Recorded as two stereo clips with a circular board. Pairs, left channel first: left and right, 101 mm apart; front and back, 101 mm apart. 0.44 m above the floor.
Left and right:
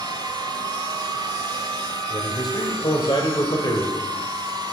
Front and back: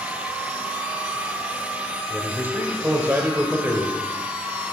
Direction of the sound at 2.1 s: 115° left.